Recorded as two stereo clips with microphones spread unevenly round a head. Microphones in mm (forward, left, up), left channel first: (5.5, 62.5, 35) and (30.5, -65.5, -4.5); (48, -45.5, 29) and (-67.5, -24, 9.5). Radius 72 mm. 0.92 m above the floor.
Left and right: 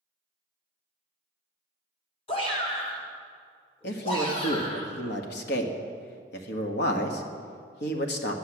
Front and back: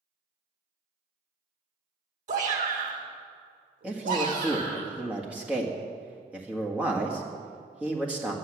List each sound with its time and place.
2.3 s a shout: 160° left, 2.5 m; by 4.8 s 165° left, 4 m
3.8 s a man speaking: 90° left, 1.6 m